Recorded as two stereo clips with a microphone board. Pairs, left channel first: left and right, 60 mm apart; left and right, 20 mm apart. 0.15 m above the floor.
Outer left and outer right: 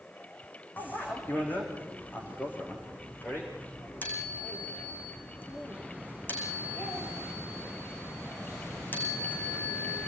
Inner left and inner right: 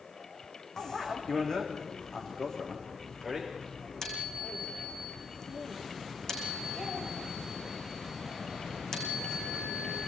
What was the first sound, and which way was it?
A bicycle bell, 30° left (ahead or behind).